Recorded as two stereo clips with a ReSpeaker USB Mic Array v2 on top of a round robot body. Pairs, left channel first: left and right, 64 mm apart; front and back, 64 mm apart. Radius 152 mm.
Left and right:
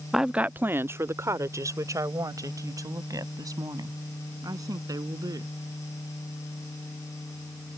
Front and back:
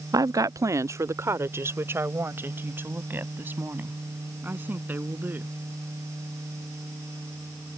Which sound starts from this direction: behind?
A woman speaking, at 0.1 s.